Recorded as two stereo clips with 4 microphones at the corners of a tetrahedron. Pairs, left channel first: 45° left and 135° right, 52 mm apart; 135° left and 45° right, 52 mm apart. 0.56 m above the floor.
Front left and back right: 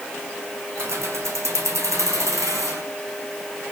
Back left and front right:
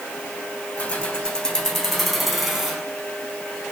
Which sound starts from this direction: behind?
Keys jangling, at 0.8 s.